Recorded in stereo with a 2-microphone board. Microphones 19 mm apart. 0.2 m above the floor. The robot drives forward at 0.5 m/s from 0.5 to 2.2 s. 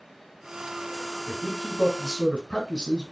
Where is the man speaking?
50° left (ahead or behind), 2 m.